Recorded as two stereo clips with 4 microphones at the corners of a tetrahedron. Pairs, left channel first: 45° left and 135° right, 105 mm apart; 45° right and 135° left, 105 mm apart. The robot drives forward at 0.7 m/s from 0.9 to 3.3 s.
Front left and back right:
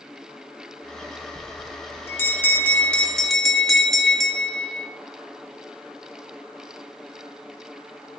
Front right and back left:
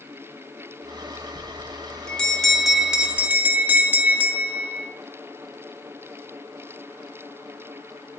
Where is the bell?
15° left, 1.8 m; by 4.9 s 130° left, 1.4 m.